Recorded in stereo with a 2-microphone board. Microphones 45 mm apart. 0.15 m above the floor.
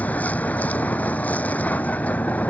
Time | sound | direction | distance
0.0 | a vehicle | 30° left (ahead or behind) | ?